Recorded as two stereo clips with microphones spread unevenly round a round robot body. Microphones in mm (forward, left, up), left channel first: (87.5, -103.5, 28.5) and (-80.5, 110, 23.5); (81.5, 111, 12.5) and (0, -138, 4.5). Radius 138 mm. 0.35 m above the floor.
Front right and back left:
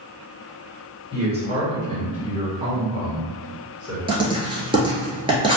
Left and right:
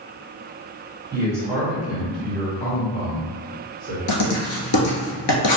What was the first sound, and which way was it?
A man speaking, 175° right.